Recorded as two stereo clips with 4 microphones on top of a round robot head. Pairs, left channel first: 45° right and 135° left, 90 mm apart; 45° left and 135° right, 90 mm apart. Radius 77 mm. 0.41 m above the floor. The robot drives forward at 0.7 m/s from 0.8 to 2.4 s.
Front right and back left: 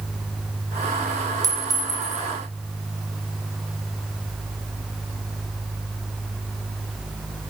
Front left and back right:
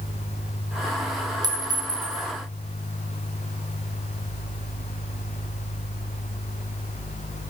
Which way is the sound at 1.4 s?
175° right.